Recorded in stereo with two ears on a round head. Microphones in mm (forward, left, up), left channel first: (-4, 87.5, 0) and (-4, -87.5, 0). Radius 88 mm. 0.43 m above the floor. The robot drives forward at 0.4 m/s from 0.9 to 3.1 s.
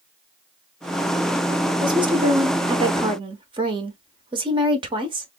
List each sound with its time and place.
1.8 s a woman speaking: 25° right (ahead or behind), 0.9 m